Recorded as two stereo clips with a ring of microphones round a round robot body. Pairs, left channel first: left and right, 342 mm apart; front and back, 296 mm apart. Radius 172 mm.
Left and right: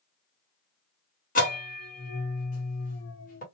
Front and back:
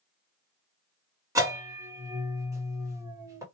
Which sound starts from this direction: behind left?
A bell, at 1.4 s.